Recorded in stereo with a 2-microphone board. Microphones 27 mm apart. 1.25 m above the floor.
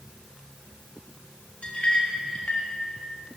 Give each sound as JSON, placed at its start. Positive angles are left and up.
{"t": 1.6, "sound": "a clink", "side_deg": 40, "distance_m": 1.4}